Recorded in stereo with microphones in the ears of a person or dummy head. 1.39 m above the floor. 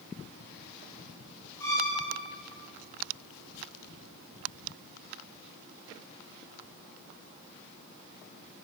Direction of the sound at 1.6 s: 10° left (ahead or behind).